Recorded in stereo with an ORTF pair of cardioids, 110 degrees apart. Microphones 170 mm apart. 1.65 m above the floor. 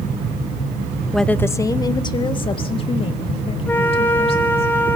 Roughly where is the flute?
Ahead.